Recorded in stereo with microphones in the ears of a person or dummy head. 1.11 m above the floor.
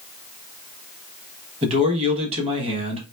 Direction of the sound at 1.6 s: 35° right (ahead or behind).